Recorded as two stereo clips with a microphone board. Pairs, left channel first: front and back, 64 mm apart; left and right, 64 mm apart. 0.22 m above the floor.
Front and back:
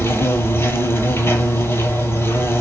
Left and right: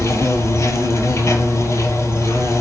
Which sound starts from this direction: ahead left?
An insect, at 0.0 s.